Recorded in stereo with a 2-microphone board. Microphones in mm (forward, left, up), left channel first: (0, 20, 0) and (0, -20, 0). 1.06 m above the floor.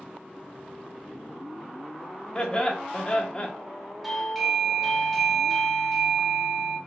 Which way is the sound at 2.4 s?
20° left (ahead or behind).